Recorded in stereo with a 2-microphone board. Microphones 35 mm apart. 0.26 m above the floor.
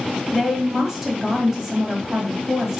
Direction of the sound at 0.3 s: 15° right (ahead or behind).